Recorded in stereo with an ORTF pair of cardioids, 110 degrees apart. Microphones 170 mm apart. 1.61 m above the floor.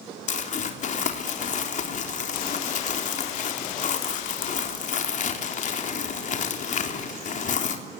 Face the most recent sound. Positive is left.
turn(degrees=50)